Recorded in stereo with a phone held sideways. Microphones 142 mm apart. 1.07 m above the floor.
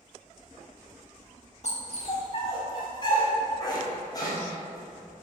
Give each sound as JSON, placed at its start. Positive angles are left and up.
{"t": 1.6, "sound": "a dog barking", "side_deg": 50, "distance_m": 1.1}